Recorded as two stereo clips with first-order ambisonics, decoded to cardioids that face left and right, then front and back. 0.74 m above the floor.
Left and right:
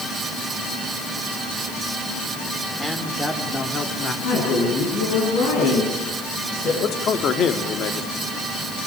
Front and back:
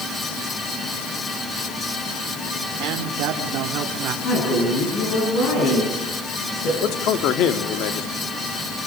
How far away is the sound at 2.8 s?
About 2.5 m.